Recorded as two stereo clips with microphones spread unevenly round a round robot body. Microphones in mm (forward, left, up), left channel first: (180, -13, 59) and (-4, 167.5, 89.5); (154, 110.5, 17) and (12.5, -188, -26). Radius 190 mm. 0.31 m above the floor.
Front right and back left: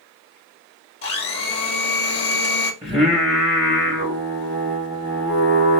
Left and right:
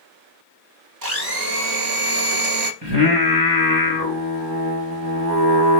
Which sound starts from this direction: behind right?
Singing, at 2.8 s.